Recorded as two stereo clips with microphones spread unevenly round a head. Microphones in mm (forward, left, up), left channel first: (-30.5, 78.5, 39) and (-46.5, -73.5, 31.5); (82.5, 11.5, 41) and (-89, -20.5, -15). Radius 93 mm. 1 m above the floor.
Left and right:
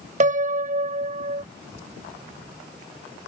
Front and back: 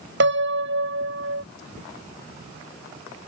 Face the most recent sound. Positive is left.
turn(degrees=-140)